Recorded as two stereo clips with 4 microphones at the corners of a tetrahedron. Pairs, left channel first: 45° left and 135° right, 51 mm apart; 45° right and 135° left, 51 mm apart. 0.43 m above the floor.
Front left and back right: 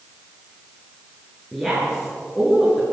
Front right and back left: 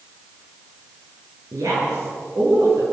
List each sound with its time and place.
1.5 s a woman speaking: 130° left, 8 m; by 2.8 s 140° left, 8.5 m